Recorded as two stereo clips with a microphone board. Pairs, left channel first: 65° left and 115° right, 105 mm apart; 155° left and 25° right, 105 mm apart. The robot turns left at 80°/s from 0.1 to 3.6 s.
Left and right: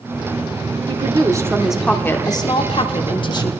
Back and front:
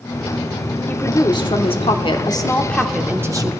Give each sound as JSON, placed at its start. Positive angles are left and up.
{"t": 0.9, "sound": "a woman speaking", "azimuth_deg": -130, "distance_m": 1.1}